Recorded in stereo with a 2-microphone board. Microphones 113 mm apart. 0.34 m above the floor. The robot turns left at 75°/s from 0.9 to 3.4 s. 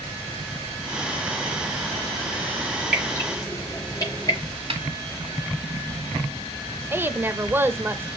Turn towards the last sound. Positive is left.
turn(degrees=-20)  # may be behind; listen again after turning